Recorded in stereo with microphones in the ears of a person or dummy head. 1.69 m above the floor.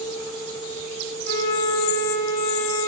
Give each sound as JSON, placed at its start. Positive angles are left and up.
{"t": 1.2, "sound": "a flute", "side_deg": 60, "distance_m": 3.0}